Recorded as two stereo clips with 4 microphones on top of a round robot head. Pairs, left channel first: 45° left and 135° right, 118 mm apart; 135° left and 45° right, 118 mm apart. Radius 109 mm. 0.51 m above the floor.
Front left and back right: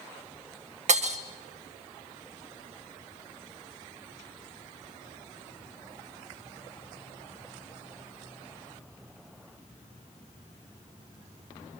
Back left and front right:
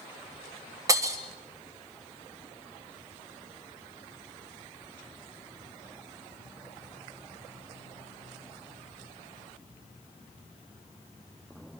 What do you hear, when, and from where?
0.9 s breaking glass: 110° right, 1.6 m